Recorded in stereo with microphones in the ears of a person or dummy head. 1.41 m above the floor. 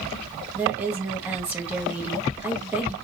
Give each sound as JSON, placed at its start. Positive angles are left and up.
{"t": 0.6, "sound": "a woman speaking", "side_deg": -10, "distance_m": 1.4}